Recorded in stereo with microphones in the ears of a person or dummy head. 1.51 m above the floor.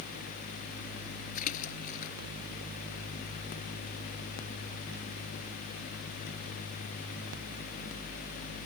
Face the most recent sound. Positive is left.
turn(degrees=50)  # may be behind; listen again after turning